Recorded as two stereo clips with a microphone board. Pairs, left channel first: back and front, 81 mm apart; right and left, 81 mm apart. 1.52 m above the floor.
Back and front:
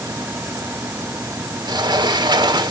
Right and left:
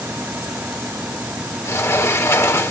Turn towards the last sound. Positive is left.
turn(degrees=-35)